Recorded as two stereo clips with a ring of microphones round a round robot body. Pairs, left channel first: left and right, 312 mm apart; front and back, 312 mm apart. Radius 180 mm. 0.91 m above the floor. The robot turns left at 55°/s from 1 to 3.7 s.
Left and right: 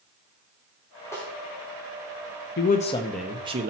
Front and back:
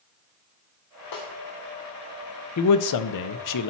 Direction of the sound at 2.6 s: 35° left.